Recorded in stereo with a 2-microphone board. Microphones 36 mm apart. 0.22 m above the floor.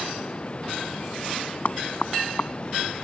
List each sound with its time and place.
0.0 s running water: 35° left (ahead or behind)
1.6 s knocking: 50° left (ahead or behind)